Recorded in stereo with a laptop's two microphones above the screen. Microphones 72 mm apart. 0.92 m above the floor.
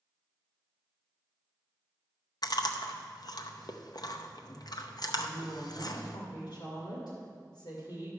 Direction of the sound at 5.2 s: 65° left (ahead or behind).